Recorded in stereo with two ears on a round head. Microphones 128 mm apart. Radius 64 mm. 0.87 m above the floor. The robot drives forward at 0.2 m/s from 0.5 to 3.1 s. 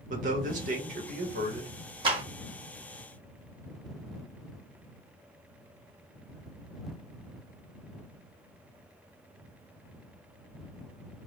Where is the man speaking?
60° right (ahead or behind), 1.3 m; by 1.7 s 55° right (ahead or behind), 1.4 m.